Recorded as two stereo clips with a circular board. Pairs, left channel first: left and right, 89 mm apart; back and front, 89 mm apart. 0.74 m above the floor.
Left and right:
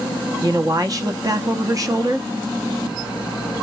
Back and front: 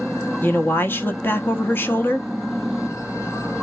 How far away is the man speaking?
About 0.9 m.